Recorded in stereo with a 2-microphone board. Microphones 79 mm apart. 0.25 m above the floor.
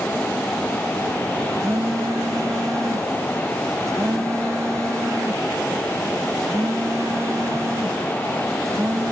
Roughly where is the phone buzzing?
Right.